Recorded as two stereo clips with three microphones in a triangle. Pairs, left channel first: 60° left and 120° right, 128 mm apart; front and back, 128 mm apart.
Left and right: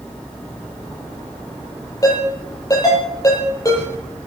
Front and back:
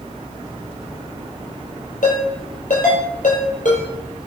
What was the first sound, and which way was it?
A ringtone, 5° right.